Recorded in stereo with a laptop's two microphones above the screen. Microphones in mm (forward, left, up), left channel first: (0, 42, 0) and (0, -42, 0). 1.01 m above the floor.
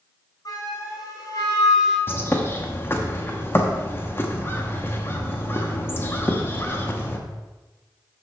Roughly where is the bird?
Left.